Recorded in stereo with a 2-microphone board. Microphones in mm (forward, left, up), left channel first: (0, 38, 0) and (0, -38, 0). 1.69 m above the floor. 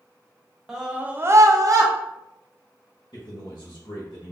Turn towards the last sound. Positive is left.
turn(degrees=85)